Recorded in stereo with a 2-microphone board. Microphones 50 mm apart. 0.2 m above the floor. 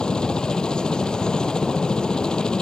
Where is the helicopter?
15° left (ahead or behind).